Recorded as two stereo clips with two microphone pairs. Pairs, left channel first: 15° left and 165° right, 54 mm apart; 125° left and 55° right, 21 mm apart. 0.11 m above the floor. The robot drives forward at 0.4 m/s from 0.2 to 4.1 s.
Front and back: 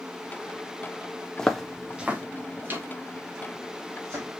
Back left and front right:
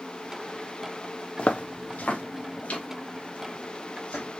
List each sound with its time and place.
1.4 s footsteps: 90° left, 0.9 m; by 4.4 s 150° left, 3 m